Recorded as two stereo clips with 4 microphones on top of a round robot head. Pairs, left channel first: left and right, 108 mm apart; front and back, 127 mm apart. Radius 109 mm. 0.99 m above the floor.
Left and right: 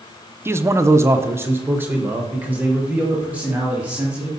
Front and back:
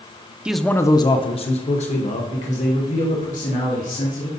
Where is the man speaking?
110° right, 0.5 m; by 4.3 s 15° right, 3 m.